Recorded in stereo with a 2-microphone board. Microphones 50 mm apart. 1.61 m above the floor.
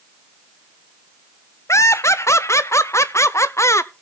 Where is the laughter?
70° left (ahead or behind), 0.7 m.